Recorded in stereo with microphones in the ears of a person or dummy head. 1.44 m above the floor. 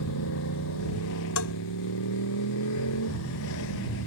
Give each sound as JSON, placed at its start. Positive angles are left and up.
{"t": 0.0, "sound": "a motorcycle", "side_deg": 85}
{"t": 1.4, "sound": "a bell", "side_deg": 80}